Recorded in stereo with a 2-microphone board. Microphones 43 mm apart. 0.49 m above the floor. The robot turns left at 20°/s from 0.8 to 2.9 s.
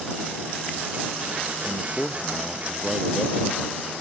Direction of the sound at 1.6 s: 15° left (ahead or behind).